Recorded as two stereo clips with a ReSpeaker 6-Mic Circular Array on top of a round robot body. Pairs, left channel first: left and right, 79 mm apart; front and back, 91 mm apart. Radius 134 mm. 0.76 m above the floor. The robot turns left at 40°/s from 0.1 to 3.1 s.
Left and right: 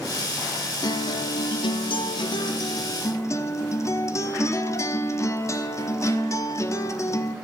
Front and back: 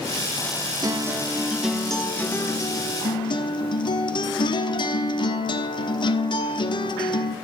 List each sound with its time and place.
0.8 s a guitar: 130° left, 1.0 m; by 7.3 s 40° left, 1.0 m